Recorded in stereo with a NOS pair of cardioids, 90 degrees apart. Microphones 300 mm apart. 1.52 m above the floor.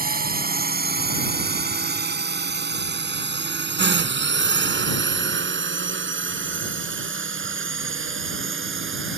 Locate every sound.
0.0 s a drone: 30° right; by 9.2 s 40° right